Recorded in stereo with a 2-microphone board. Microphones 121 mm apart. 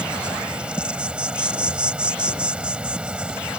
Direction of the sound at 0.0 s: 10° right (ahead or behind).